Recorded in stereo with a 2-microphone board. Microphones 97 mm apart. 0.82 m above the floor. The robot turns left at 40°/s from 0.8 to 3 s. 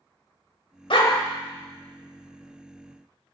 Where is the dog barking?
65° left (ahead or behind), 1.1 m; by 1.1 s 70° left (ahead or behind), 1.1 m.